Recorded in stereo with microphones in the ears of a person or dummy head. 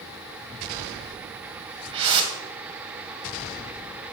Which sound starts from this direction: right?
A whoosh, at 1.9 s.